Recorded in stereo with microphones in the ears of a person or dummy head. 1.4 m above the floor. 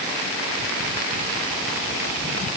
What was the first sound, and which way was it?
Only background noise.